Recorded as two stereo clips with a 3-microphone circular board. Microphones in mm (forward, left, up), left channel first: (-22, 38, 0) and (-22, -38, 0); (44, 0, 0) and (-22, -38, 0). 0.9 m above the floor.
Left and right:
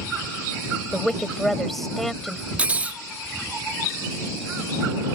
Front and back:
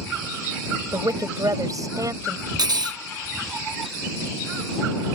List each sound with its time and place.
0.9 s a woman speaking: 175° left
2.6 s cutlery clinking: 160° right